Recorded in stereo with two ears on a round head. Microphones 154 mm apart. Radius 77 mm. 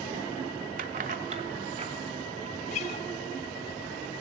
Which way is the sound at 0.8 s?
50° right (ahead or behind).